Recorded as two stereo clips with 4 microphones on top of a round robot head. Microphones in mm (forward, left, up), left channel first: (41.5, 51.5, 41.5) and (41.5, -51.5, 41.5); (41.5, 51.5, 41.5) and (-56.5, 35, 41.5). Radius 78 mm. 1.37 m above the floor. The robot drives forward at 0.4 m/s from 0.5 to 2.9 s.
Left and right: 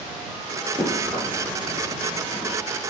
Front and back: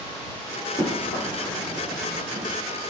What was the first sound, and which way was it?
Running footsteps, 20° right.